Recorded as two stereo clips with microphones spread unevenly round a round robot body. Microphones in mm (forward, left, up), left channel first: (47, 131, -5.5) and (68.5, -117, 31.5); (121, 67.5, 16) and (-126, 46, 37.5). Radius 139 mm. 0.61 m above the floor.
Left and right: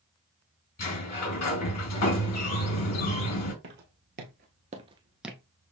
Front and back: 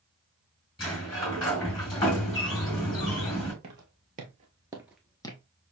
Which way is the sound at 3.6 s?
125° right.